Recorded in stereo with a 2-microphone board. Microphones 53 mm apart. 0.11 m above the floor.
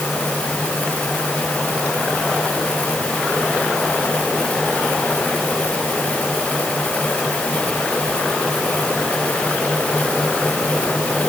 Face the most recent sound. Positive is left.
No sound to turn to.